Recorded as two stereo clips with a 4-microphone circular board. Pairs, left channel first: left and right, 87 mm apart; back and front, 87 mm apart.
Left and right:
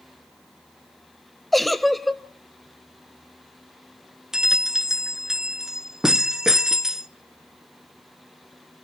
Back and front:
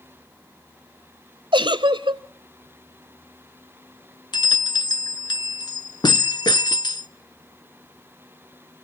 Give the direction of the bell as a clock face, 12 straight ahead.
6 o'clock.